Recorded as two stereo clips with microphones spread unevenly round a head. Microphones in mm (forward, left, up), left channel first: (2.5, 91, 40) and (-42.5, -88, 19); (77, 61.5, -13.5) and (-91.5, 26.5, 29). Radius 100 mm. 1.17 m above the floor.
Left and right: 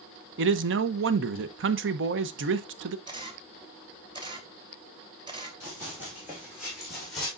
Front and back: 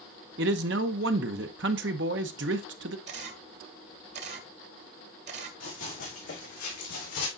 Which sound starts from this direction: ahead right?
Running footsteps, at 5.6 s.